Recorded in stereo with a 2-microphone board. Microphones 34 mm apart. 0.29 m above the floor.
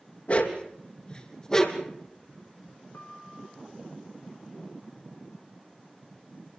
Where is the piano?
75° left (ahead or behind), 4 m.